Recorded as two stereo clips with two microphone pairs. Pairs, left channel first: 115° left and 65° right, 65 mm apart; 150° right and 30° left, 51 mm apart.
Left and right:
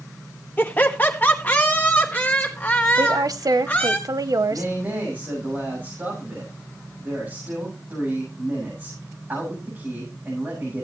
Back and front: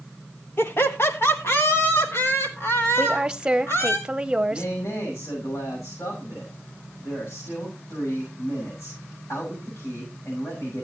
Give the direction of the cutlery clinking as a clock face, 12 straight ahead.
I don't hear cutlery clinking.